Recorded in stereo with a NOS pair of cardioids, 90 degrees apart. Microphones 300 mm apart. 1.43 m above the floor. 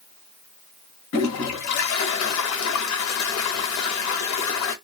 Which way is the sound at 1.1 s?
65° left.